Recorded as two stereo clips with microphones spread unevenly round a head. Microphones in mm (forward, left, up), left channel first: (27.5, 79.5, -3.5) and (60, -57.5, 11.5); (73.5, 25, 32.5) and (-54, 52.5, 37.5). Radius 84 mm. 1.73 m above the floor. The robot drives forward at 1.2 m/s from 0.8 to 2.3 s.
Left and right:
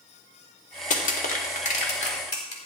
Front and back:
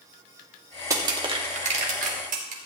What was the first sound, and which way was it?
Crushing, 115° left.